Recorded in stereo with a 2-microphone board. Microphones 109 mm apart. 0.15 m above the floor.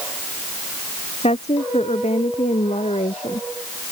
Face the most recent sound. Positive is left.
turn(degrees=85)